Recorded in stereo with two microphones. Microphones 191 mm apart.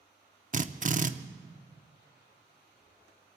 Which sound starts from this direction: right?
A drill, at 0.5 s.